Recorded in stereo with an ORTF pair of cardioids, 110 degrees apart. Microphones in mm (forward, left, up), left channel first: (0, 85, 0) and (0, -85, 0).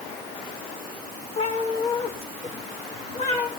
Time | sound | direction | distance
1.4 | a cat meowing | 40° left | 8.5 m